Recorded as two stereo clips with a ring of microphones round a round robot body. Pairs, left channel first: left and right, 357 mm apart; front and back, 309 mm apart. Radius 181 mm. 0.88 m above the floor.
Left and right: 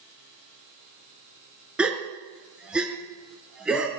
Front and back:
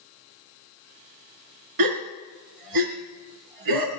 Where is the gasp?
175° right, 3 m.